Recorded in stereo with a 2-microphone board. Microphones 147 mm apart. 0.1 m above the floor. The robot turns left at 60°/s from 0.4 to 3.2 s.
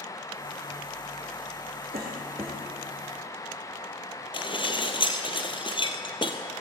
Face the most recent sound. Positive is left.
turn(degrees=35)  # may be behind; listen again after turning